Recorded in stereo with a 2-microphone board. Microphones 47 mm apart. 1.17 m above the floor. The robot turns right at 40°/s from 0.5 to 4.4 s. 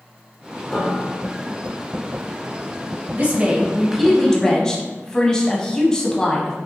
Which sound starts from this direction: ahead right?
A woman speaking, at 3.1 s.